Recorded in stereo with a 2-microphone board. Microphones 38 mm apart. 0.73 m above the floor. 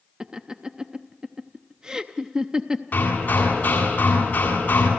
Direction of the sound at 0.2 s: 25° right (ahead or behind).